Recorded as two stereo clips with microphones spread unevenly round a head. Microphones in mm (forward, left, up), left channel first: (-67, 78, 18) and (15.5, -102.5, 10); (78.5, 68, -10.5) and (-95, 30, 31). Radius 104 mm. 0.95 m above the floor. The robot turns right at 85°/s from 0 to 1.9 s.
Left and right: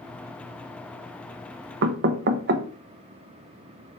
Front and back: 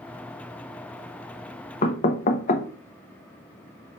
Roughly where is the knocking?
Ahead right.